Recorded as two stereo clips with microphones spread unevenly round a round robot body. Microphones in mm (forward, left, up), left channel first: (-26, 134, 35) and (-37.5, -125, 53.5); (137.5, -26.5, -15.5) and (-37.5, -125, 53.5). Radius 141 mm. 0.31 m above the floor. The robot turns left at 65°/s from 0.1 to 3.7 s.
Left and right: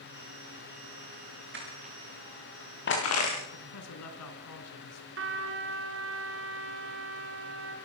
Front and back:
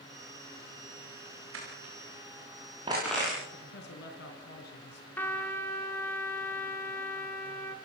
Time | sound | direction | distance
1.5 | crushing | 140° right | 9.5 m
3.5 | a man speaking | 75° left | 4 m
5.2 | a trumpet | 50° right | 3.5 m